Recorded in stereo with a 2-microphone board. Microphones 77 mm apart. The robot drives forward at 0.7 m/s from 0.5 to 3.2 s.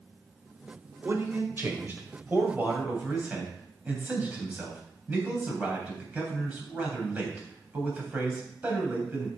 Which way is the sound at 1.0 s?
35° right (ahead or behind).